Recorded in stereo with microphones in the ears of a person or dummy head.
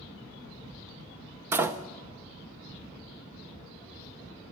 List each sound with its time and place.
1.5 s a door slam: 15° right (ahead or behind), 0.6 m